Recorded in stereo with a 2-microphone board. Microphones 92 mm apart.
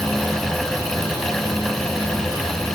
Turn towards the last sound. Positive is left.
No sound to turn to.